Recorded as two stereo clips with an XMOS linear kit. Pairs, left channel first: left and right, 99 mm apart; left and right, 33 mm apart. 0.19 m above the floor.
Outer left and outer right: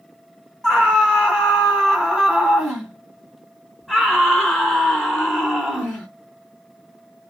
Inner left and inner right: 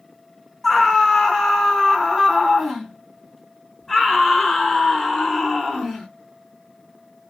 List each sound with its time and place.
0.6 s a scream: 5° right (ahead or behind), 1.2 m